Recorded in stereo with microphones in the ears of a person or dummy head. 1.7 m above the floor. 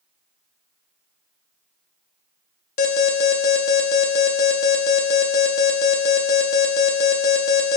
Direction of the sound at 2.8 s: 45° left (ahead or behind).